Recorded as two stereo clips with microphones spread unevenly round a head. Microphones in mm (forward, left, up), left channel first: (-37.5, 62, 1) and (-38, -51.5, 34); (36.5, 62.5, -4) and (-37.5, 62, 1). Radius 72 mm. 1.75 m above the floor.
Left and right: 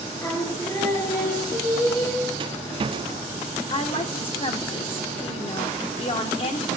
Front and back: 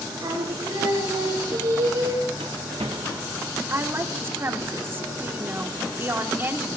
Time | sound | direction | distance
0.2 | singing | 155° left | 4 m
2.4 | a rattle | 130° right | 0.7 m
3.7 | a woman speaking | 125° left | 1.7 m